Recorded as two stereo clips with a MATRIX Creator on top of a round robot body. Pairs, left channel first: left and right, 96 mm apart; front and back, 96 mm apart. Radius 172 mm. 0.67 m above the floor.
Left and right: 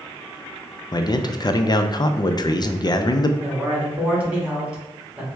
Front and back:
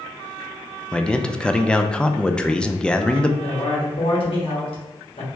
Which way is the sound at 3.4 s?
10° right.